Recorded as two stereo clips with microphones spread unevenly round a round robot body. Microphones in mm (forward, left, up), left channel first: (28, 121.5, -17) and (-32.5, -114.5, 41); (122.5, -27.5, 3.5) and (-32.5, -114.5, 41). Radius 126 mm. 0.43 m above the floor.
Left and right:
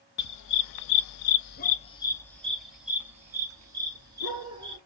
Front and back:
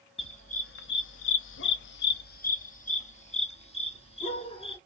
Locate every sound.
0.2 s a dog barking: 95° left, 0.7 m; by 4.8 s 30° right, 2 m